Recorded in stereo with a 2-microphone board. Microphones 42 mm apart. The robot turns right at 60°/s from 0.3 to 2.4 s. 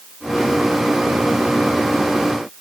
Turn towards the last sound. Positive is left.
No sound to turn to.